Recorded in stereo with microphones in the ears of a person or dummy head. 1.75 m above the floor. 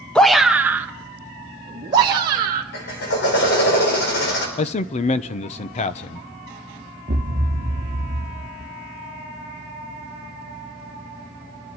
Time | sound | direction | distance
0.1 | a shout | 5° left (ahead or behind) | 0.6 m
2.7 | a drill | 55° left (ahead or behind) | 4 m
4.6 | a man speaking | 35° left (ahead or behind) | 0.7 m
7.1 | a thud | 25° right (ahead or behind) | 1.4 m